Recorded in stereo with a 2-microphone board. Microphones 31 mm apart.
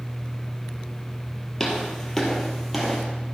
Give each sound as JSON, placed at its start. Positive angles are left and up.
{"t": 1.6, "sound": "footsteps", "side_deg": 10, "distance_m": 2.0}